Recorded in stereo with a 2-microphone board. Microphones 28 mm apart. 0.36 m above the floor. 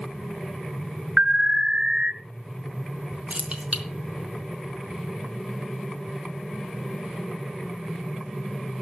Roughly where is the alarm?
Right.